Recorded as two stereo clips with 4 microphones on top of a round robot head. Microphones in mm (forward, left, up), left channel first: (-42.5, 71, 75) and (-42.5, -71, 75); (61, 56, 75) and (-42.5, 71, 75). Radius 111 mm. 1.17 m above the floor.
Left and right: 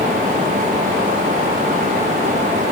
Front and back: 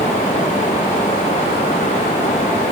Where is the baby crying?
I don't hear a baby crying.